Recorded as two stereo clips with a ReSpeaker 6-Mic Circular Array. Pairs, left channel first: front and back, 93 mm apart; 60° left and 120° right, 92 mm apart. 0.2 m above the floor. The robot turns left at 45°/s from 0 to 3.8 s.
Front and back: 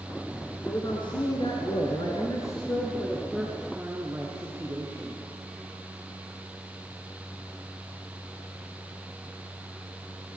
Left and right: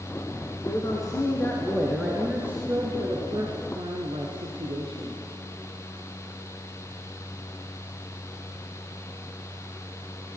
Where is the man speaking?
30° left, 3.5 m; by 5.2 s 110° right, 3.5 m.